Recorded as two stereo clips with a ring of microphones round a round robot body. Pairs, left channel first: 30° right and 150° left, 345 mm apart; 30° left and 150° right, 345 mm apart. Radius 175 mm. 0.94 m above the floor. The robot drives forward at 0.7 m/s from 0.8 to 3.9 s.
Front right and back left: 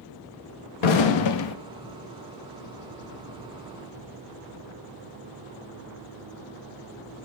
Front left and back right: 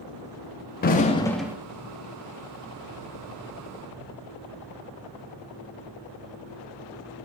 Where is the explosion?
35° right, 0.9 m; by 1.6 s 70° right, 0.5 m.